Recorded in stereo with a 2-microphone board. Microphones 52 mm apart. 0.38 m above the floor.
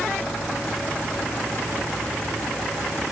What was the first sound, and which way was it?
Only background noise.